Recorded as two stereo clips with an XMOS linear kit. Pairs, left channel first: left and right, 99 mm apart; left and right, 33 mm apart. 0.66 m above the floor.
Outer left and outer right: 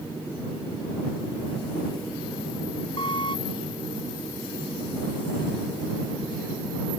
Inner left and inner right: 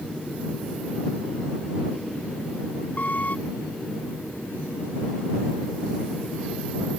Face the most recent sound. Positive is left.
turn(degrees=55)  # may be behind; listen again after turning